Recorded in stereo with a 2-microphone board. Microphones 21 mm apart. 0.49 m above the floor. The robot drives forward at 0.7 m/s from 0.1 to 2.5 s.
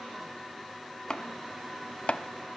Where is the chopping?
30° left (ahead or behind), 1.7 m; by 2.2 s 50° left (ahead or behind), 1.1 m.